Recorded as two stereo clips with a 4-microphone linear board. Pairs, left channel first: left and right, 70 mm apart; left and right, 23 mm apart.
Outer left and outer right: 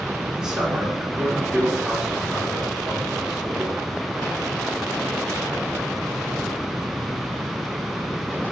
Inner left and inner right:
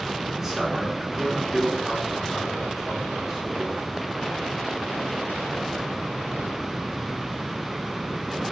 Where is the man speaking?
10° right (ahead or behind), 2.5 m.